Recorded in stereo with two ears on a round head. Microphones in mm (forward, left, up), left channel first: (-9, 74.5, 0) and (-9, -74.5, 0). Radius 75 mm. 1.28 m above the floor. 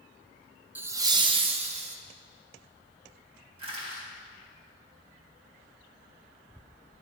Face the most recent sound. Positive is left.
turn(degrees=-35)  # may be behind; listen again after turning